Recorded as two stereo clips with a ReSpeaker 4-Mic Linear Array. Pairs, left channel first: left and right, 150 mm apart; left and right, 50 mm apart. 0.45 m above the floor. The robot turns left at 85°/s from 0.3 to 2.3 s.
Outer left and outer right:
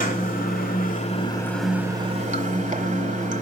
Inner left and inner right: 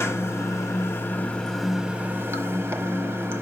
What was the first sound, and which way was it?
Running water, 115° left.